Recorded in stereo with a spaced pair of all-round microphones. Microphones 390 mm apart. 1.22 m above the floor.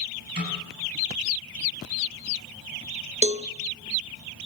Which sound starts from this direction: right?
A snare drum, at 0.4 s.